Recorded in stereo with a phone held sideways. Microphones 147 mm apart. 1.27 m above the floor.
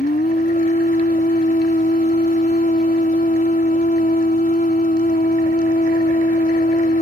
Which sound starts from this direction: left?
A machine running, at 0.0 s.